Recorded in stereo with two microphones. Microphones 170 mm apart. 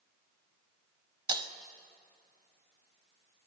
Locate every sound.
1.3 s breaking glass: 25° right (ahead or behind), 0.6 m